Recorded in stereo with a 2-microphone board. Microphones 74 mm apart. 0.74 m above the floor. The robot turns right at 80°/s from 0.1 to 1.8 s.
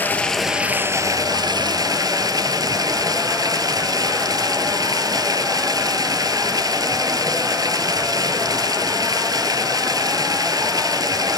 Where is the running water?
155° left, 1.6 m; by 11.4 s 70° right, 1.6 m.